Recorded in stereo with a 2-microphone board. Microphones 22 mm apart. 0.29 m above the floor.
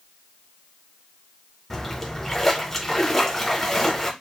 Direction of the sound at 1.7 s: 15° left (ahead or behind).